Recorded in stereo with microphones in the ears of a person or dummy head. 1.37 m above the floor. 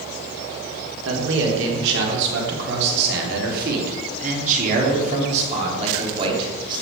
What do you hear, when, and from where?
1.1 s a man speaking: 75° right (ahead or behind), 4 m; by 6.8 s 25° right (ahead or behind), 3.5 m